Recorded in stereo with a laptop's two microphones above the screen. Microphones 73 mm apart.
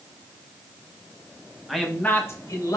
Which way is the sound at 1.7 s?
Centre (ahead or behind).